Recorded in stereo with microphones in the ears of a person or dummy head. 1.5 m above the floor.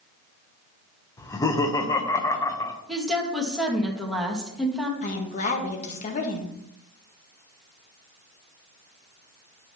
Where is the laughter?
20° left (ahead or behind), 1.1 m.